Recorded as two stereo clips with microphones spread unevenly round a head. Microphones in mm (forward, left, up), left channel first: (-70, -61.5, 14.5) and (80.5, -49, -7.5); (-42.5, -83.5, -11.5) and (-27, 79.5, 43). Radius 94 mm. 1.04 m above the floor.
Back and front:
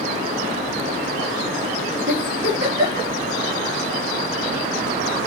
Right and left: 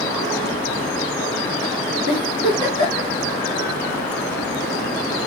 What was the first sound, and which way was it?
A giggle, 20° left.